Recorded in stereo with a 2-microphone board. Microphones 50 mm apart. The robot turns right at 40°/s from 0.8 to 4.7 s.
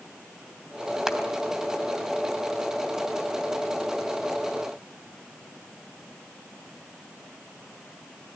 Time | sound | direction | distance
1.1 | crushing | 10° right (ahead or behind) | 3 m